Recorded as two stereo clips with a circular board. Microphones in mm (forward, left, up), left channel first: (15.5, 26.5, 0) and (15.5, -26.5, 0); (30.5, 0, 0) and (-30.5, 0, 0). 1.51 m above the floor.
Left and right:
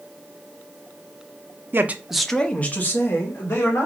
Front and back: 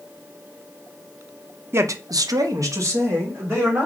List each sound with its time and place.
1.7 s a man speaking: 135° right, 0.5 m; by 3.9 s 130° left, 1.9 m